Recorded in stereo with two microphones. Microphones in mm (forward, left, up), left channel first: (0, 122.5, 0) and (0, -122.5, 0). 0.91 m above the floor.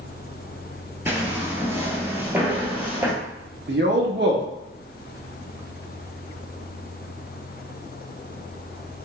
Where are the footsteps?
10° right (ahead or behind), 0.9 m; by 3.1 s 5° right (ahead or behind), 1.2 m.